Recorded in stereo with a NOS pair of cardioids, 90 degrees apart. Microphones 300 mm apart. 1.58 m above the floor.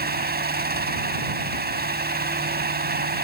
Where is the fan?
30° right.